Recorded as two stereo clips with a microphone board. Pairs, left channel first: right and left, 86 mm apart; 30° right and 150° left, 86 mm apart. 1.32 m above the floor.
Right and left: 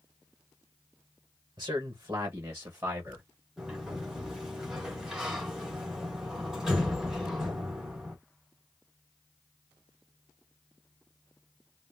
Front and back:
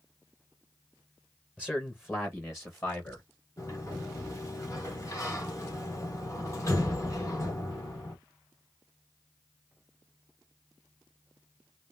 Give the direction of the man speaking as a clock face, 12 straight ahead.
10 o'clock.